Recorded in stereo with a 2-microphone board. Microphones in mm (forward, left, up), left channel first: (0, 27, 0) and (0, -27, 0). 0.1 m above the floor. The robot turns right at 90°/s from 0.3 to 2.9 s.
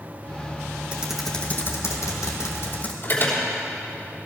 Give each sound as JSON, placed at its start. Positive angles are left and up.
{"t": 0.9, "sound": "typing on a keyboard", "azimuth_deg": -25, "distance_m": 1.8}
{"t": 3.0, "sound": "an alarm", "side_deg": 45, "distance_m": 3.5}